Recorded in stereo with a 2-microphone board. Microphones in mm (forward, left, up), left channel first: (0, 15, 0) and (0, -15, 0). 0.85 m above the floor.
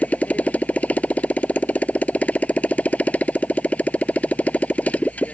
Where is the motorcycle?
60° left (ahead or behind).